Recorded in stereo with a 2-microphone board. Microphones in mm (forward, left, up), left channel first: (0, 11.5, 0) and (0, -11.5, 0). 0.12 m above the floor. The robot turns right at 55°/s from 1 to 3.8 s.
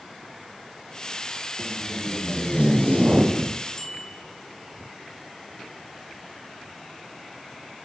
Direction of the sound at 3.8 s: 20° left (ahead or behind).